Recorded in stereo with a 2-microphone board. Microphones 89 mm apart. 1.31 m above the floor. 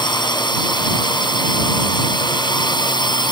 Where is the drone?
60° left (ahead or behind).